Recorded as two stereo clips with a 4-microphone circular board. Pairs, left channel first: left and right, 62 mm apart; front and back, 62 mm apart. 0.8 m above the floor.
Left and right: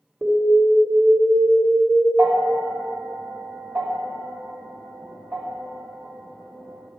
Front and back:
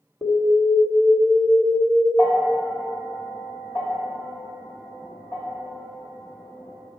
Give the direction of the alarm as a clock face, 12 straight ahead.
1 o'clock.